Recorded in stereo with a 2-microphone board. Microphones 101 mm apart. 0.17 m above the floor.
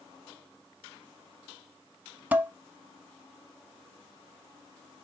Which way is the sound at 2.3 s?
15° right (ahead or behind).